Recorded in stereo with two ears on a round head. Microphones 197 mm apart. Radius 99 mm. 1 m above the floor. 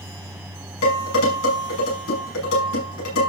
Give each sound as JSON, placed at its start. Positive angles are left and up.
{"t": 0.8, "sound": "dishes clattering", "side_deg": 70, "distance_m": 7.0}